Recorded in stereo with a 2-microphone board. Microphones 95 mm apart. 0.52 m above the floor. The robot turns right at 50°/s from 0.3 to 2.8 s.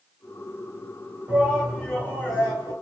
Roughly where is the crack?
I don't hear a crack.